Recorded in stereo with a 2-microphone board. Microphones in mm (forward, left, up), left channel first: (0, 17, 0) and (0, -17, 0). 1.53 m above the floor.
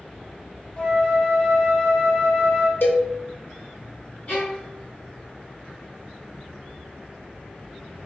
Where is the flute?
30° left (ahead or behind), 0.9 m.